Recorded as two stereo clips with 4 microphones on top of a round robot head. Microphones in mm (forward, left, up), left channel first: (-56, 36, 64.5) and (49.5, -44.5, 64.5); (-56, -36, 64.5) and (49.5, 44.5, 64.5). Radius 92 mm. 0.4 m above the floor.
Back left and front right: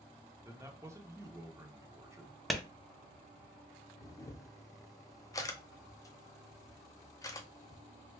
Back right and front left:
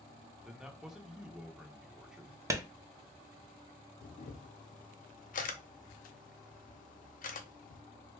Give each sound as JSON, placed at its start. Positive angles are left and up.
{"t": 0.5, "sound": "a man speaking", "azimuth_deg": -40, "distance_m": 0.9}
{"t": 2.5, "sound": "a clap", "azimuth_deg": 55, "distance_m": 0.6}
{"t": 4.0, "sound": "a camera shutter", "azimuth_deg": -155, "distance_m": 0.6}